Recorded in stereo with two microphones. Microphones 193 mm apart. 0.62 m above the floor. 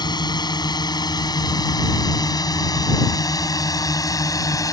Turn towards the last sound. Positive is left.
turn(degrees=20)  # may be behind; listen again after turning